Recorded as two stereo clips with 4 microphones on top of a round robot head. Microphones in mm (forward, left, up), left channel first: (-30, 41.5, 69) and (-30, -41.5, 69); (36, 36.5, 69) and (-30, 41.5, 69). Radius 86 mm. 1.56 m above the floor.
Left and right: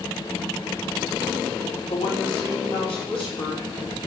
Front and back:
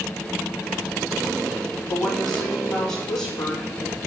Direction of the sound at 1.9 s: 75° left.